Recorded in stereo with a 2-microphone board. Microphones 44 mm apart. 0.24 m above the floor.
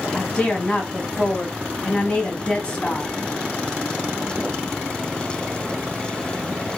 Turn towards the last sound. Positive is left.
turn(degrees=25)  # may be behind; listen again after turning